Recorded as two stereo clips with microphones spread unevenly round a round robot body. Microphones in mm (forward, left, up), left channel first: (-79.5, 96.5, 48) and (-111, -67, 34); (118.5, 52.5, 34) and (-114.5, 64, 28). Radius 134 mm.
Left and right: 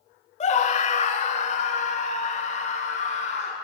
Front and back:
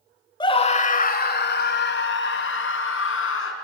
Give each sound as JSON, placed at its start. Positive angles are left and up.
{"t": 0.4, "sound": "a scream", "azimuth_deg": 60, "distance_m": 1.3}